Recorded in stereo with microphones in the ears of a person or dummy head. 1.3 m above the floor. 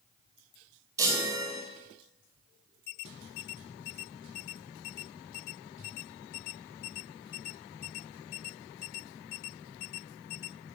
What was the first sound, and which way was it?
A chime, 20° right (ahead or behind).